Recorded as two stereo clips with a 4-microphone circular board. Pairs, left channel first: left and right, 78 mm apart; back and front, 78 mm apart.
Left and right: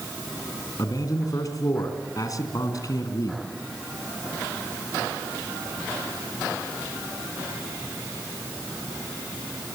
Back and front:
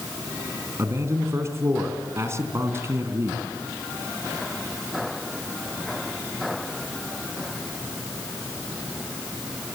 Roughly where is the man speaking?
Ahead left.